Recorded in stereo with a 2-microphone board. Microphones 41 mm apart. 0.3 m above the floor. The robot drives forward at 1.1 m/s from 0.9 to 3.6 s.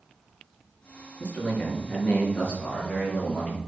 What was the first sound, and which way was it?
A man speaking, 45° left (ahead or behind).